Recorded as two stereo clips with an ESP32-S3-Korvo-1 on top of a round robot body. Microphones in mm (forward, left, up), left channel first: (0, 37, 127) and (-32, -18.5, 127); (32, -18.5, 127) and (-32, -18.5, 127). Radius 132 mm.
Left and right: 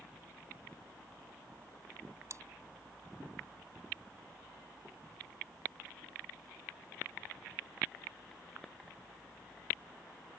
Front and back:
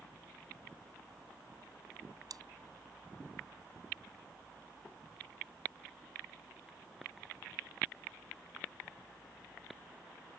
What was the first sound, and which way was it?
Chewing, 160° right.